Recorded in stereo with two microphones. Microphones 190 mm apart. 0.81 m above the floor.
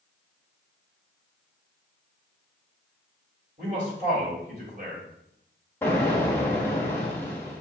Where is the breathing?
No breathing in this recording.